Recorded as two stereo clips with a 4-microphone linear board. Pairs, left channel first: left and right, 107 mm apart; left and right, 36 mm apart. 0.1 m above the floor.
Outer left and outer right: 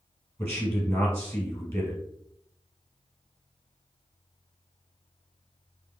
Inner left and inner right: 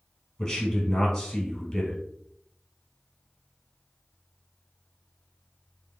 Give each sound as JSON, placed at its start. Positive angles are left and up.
{"t": 0.4, "sound": "a man speaking", "side_deg": 25, "distance_m": 1.8}